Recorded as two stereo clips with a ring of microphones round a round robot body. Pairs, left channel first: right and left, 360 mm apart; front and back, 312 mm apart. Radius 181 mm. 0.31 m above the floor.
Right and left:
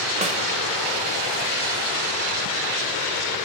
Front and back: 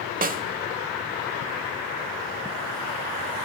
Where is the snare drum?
145° left, 1.3 m.